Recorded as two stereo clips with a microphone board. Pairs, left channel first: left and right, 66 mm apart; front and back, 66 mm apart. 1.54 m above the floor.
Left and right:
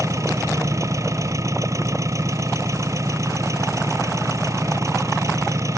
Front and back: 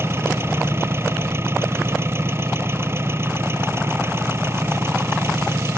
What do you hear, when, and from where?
0.0 s an engine running: 130° right